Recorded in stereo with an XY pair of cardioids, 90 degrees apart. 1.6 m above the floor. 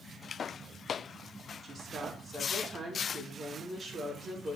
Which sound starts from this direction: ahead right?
A woman speaking, at 1.6 s.